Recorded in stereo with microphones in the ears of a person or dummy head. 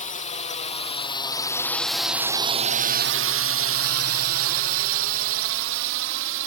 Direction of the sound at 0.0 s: 35° left (ahead or behind).